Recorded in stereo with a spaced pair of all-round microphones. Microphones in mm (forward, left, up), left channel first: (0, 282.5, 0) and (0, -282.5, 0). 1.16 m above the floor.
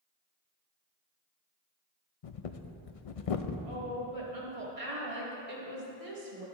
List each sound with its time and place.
2.2 s breathing: 75° left (ahead or behind), 0.6 m
3.6 s a woman speaking: 75° right (ahead or behind), 2.5 m